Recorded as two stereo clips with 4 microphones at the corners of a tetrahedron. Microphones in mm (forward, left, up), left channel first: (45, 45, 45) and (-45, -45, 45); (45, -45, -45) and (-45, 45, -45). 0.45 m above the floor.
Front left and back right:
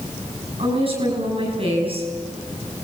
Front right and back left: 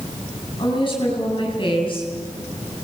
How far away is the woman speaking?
About 8.5 m.